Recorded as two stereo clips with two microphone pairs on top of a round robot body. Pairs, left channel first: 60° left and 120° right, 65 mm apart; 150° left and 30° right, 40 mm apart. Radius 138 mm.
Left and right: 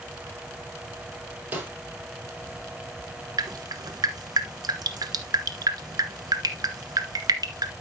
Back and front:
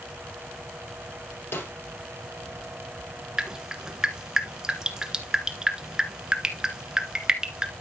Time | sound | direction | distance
1.5 | a snare drum | 175° left | 4.5 m
3.4 | dripping | 100° right | 1.4 m